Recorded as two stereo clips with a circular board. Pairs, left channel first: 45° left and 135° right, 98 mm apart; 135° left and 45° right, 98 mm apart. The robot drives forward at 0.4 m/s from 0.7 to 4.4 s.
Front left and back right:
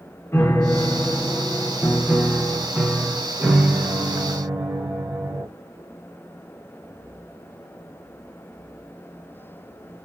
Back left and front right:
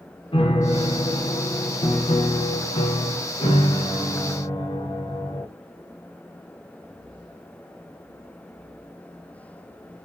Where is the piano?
110° left, 1.1 m; by 5.5 s 150° left, 2 m.